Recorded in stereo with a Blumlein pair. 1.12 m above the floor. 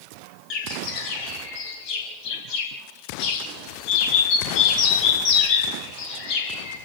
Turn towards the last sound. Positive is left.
turn(degrees=40)